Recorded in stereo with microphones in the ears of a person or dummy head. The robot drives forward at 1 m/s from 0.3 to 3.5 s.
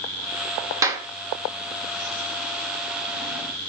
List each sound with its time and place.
0.8 s a clap: 20° right (ahead or behind), 1.9 m; by 1.1 s 25° right (ahead or behind), 1.7 m